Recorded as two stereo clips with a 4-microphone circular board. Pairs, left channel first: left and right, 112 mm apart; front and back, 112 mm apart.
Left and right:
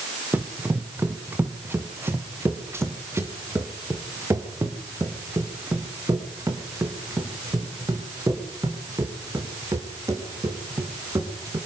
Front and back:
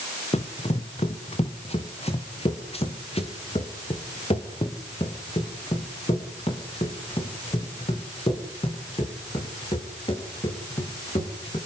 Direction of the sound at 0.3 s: 15° right.